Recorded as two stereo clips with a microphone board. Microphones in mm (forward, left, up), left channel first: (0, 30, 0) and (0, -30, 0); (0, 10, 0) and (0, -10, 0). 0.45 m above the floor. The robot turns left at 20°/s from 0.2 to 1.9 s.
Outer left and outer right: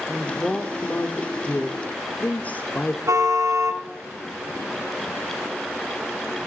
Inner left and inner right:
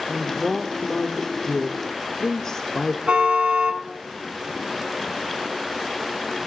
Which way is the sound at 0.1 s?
20° left (ahead or behind).